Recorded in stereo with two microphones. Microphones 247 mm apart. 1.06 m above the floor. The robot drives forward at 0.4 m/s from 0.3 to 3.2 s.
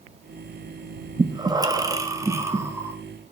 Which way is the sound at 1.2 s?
20° right (ahead or behind).